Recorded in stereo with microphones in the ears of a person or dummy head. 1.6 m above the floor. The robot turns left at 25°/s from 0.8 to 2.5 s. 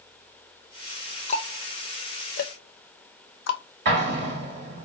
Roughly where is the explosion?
Right.